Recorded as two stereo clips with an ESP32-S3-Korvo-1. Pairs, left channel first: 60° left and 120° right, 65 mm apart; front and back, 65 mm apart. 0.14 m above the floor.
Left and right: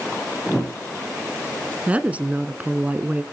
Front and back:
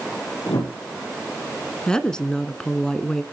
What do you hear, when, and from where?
0.5 s a whoosh: 25° right, 6 m
1.9 s a woman speaking: 70° right, 1.2 m